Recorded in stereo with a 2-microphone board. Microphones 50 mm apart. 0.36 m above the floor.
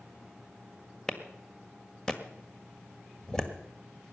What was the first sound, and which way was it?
A clap, 15° left (ahead or behind).